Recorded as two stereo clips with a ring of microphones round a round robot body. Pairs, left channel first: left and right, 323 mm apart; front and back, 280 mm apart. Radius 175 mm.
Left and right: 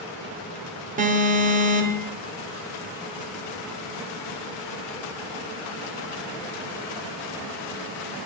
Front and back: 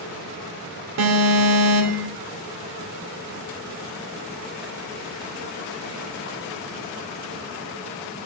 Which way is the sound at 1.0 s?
155° right.